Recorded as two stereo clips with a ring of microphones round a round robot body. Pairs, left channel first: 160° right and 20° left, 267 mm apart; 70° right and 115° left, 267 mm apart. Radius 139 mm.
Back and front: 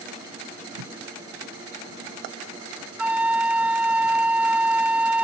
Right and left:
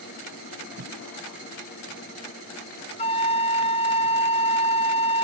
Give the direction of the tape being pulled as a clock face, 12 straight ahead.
10 o'clock.